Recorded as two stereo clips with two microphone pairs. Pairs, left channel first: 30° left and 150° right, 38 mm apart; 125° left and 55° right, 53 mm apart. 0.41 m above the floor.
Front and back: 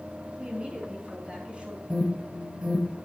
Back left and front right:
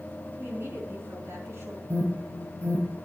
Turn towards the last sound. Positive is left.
turn(degrees=-80)